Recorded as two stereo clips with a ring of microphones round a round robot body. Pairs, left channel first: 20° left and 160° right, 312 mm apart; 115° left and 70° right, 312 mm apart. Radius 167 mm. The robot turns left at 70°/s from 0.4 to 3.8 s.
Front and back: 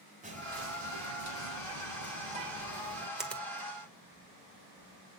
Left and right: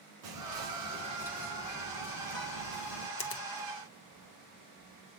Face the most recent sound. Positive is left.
turn(degrees=75)